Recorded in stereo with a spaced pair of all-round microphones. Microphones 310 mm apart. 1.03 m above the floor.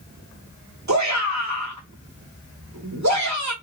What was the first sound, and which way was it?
A shout, 60° right (ahead or behind).